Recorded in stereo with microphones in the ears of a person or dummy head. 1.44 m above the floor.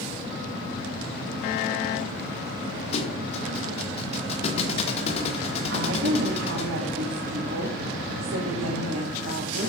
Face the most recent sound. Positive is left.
turn(degrees=-65)  # may be behind; listen again after turning